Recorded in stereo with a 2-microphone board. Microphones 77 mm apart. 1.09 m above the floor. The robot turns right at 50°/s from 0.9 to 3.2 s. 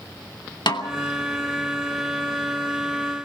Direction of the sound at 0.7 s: 75° left (ahead or behind).